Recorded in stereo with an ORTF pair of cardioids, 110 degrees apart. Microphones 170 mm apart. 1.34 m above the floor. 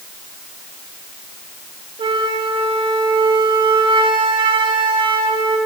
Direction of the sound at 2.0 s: 30° right.